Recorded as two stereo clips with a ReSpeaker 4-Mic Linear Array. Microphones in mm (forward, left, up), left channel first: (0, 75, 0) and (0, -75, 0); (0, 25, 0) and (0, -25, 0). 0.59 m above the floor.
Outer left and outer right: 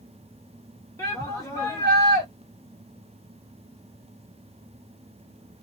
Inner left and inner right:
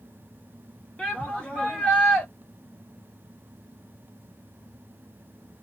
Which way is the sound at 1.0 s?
20° left (ahead or behind).